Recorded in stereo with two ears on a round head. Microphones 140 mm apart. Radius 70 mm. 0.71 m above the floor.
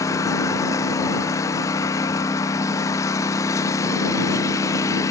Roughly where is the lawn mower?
Left.